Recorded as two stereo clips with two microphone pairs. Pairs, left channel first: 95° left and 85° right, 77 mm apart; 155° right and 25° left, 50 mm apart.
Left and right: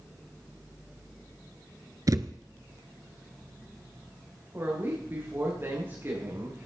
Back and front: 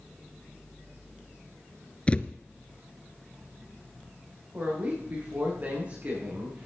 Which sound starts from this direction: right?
A thud, at 2.1 s.